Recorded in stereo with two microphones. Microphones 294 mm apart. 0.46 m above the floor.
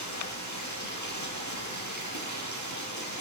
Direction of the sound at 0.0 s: 75° left (ahead or behind).